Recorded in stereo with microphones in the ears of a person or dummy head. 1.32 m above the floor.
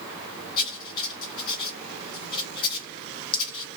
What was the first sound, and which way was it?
Writing, 30° left (ahead or behind).